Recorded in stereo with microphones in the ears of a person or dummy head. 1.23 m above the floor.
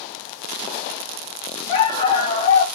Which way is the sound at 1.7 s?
30° left (ahead or behind).